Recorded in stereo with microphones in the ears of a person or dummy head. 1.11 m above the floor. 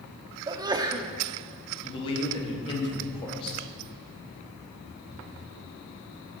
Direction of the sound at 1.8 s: 25° left (ahead or behind).